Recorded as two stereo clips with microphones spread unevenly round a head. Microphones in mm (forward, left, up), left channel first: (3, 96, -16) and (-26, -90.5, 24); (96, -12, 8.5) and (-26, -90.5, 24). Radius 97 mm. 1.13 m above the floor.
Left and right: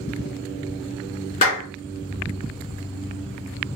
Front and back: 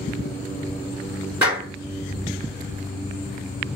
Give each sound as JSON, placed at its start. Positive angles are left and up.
{"t": 1.4, "sound": "a clap", "azimuth_deg": 130, "distance_m": 3.0}